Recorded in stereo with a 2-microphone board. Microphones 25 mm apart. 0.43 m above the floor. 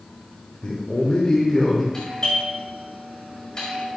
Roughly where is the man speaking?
Left.